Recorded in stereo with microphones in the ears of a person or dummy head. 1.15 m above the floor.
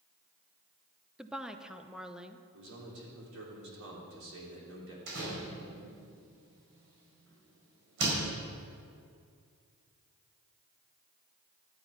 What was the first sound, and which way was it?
A woman speaking, 5° right (ahead or behind).